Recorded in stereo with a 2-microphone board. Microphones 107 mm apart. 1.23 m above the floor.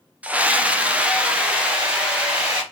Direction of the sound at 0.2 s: 15° right (ahead or behind).